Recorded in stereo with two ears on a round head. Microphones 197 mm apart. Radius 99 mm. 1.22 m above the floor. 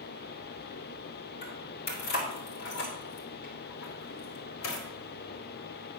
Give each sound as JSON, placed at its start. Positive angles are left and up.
{"t": 1.4, "sound": "keys jangling", "side_deg": 40, "distance_m": 3.5}